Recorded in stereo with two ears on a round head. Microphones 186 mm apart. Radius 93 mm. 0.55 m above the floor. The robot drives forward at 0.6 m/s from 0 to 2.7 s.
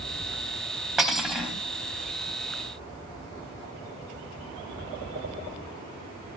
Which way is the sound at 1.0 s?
Centre (ahead or behind).